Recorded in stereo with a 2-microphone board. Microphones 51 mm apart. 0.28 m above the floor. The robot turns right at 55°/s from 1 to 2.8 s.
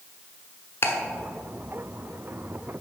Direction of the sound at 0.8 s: 45° left (ahead or behind).